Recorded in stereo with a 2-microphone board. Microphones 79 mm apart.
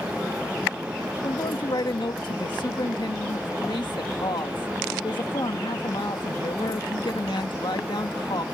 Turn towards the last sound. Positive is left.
turn(degrees=80)